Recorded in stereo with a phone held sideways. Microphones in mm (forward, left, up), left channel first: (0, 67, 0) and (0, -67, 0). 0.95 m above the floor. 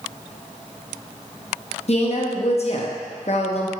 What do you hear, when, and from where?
1.9 s a woman speaking: 50° left (ahead or behind), 0.7 m